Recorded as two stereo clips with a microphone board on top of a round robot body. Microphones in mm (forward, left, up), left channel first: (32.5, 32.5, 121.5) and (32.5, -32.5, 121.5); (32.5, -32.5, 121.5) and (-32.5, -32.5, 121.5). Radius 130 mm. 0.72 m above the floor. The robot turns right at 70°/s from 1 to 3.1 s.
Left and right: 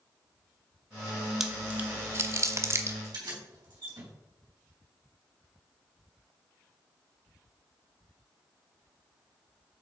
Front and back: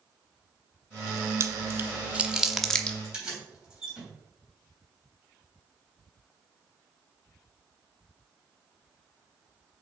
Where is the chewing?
170° right, 1.0 m; by 2.9 s 65° right, 1.0 m.